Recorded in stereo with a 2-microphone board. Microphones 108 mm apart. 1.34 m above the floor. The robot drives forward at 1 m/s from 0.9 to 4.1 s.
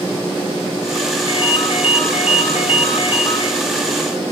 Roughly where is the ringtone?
Left.